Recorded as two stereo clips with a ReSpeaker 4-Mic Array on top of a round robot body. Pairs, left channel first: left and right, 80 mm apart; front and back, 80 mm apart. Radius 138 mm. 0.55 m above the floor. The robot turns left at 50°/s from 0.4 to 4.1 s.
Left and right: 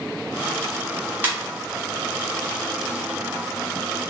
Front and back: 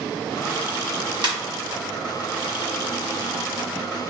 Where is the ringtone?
155° right, 1.8 m; by 1.3 s 160° right, 1.8 m.